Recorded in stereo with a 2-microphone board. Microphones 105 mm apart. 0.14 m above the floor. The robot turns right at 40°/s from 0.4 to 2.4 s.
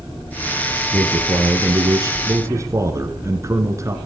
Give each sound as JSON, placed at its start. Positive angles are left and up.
{"t": 0.9, "sound": "a man speaking", "azimuth_deg": -105, "distance_m": 2.0}